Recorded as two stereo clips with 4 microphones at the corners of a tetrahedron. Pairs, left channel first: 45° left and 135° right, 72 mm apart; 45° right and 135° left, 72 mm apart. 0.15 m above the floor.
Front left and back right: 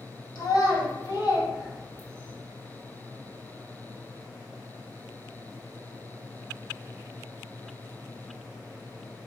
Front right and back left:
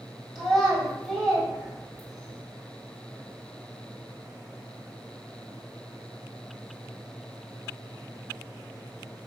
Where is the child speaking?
55° left, 1.7 m.